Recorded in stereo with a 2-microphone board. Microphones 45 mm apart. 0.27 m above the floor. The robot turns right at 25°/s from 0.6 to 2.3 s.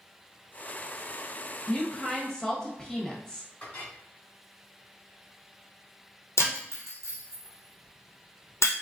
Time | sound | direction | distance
1.7 | a woman speaking | 15° left (ahead or behind) | 0.9 m
3.6 | a clink | 40° left (ahead or behind) | 2 m
6.4 | breaking glass | 80° left | 1.4 m